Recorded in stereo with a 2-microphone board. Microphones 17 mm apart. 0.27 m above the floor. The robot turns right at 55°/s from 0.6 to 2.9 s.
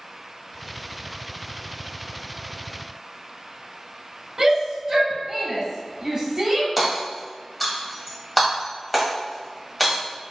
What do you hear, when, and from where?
4.4 s a shout: 25° right (ahead or behind), 1.3 m
6.8 s hammering: 5° left (ahead or behind), 1.4 m